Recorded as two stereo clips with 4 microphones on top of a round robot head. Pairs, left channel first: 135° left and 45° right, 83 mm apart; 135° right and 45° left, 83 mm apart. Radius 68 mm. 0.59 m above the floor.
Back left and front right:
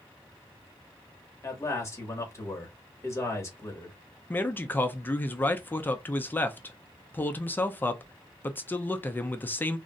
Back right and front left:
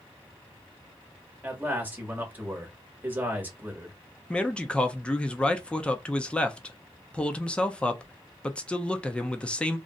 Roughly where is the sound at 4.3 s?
Behind.